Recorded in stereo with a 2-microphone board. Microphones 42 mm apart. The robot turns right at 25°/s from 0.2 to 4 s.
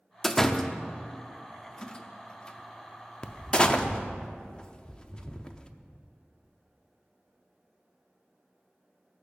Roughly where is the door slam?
Centre.